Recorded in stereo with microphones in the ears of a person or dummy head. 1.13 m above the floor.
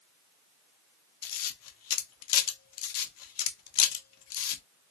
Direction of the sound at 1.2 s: 75° left (ahead or behind).